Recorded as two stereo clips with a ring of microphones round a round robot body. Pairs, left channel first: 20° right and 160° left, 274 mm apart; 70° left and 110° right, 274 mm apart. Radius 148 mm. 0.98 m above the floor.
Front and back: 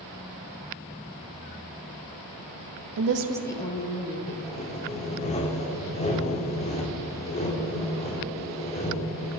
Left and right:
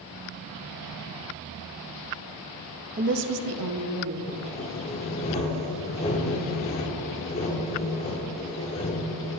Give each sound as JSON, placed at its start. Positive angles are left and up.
{"t": 3.0, "sound": "a woman speaking", "azimuth_deg": -175, "distance_m": 0.7}
{"t": 4.3, "sound": "sawing", "azimuth_deg": 20, "distance_m": 0.6}